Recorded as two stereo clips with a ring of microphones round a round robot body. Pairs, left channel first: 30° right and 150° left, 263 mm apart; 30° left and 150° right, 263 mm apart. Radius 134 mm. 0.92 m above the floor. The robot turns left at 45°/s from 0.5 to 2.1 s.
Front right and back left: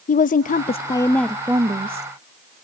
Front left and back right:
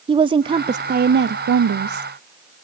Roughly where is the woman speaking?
Right.